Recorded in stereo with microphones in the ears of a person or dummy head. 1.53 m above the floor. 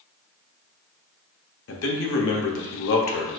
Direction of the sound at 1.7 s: 70° left (ahead or behind).